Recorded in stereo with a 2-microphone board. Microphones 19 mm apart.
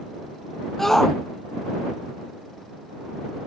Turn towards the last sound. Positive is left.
turn(degrees=20)  # may be behind; listen again after turning